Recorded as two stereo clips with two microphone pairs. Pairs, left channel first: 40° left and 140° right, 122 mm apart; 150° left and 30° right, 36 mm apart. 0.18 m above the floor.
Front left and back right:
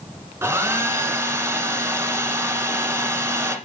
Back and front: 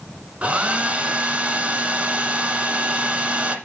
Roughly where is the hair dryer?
Right.